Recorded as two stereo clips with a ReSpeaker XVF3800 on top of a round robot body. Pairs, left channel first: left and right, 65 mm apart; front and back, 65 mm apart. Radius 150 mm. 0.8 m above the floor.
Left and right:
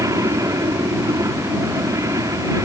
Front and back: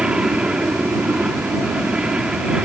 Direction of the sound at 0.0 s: 105° right.